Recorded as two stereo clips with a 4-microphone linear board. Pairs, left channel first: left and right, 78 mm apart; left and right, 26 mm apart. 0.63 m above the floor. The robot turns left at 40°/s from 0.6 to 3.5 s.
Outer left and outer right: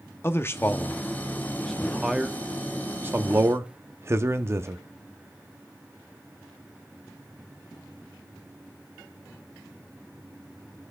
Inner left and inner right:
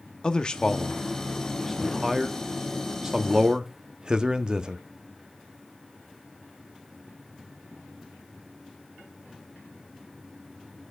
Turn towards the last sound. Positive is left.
turn(degrees=-35)  # may be behind; listen again after turning